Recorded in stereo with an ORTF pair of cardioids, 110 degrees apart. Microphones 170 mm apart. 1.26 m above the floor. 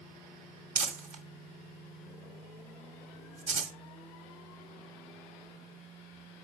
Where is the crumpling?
50° right, 1.6 m.